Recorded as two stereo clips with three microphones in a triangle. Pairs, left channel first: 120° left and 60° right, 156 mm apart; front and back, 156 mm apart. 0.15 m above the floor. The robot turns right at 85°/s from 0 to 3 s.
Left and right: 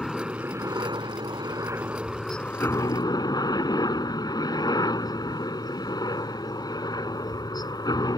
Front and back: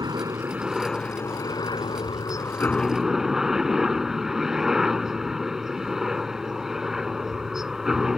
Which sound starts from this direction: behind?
A helicopter, at 0.0 s.